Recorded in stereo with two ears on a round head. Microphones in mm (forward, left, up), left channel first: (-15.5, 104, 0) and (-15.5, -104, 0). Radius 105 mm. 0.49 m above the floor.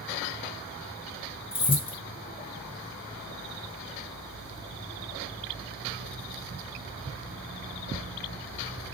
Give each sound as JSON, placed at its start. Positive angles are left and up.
{"t": 1.5, "sound": "keys jangling", "side_deg": 25, "distance_m": 0.6}